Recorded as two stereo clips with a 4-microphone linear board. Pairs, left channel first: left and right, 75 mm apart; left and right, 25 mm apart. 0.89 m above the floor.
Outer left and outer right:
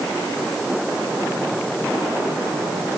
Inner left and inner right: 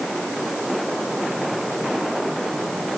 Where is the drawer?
No drawer in this recording.